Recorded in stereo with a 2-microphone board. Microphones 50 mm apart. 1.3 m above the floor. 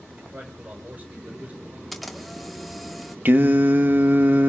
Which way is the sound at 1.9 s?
Centre (ahead or behind).